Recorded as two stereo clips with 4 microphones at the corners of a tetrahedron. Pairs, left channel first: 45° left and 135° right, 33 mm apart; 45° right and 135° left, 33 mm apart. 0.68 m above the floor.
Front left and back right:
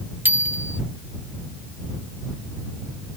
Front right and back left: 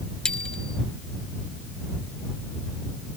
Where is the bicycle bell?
110° right.